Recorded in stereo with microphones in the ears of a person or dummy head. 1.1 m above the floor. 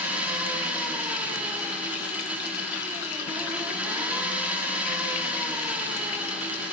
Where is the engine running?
5° right (ahead or behind), 1.7 m.